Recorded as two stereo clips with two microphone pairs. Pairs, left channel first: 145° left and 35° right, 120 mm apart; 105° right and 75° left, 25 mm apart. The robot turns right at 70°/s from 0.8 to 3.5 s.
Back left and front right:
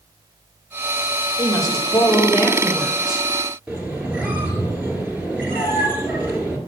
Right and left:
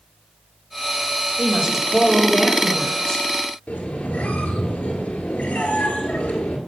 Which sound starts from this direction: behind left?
A woman speaking, at 1.4 s.